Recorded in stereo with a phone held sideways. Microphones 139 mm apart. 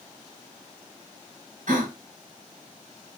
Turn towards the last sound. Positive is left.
turn(degrees=-70)  # may be behind; listen again after turning